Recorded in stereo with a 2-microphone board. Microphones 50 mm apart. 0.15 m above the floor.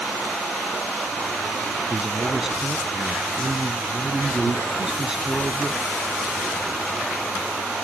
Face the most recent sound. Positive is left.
turn(degrees=-10)  # may be behind; listen again after turning